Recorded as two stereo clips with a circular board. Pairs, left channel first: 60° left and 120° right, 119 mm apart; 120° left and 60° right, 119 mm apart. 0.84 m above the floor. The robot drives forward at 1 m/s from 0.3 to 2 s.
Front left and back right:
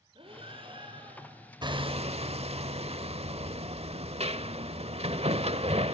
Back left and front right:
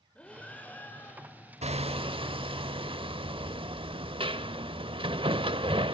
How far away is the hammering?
About 1.0 m.